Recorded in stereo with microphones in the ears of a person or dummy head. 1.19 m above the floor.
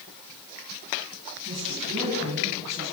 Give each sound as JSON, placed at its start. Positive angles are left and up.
{"t": 1.4, "sound": "a woman speaking", "side_deg": -40, "distance_m": 10.0}